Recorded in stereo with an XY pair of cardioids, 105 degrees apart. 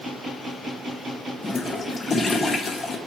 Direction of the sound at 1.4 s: 30° left.